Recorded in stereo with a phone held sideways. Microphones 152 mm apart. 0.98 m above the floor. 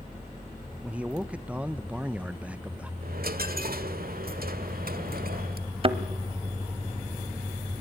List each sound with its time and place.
0.8 s a man speaking: 10° right (ahead or behind), 0.8 m
3.0 s a dropped coin: 75° right (ahead or behind), 1.6 m
5.8 s a thud: 35° right (ahead or behind), 1.2 m